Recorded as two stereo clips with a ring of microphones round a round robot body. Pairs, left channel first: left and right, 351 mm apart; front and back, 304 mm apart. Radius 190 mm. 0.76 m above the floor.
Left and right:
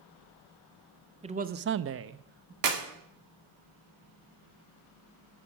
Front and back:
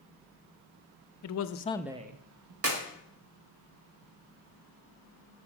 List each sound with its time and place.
1.2 s a man speaking: 20° right, 0.8 m; by 2.5 s 155° right, 1.0 m
2.6 s a clap: 130° right, 1.8 m